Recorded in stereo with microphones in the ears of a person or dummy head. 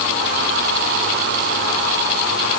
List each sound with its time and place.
Only background noise.